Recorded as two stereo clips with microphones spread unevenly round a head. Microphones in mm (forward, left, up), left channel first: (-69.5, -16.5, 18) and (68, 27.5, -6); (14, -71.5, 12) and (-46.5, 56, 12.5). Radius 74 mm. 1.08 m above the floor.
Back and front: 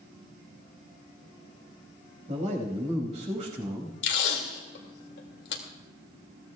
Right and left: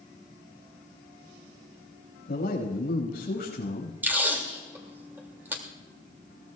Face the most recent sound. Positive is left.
turn(degrees=-170)